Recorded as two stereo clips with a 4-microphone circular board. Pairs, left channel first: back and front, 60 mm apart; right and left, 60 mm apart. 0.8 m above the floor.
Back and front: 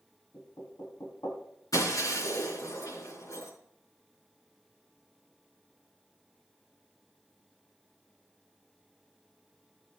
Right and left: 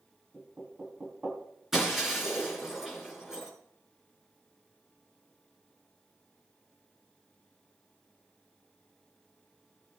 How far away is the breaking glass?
About 5.5 m.